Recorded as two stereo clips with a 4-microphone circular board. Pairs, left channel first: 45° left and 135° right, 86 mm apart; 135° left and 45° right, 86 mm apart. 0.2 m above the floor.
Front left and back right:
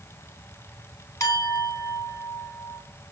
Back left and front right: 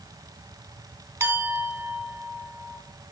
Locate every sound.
1.2 s a clink: 10° left, 0.9 m